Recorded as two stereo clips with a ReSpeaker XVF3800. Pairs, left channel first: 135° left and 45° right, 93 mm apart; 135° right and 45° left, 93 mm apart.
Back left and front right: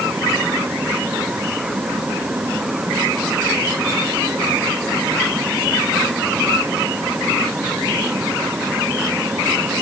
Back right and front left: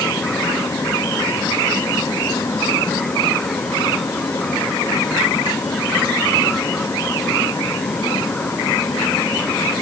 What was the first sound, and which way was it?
Only background noise.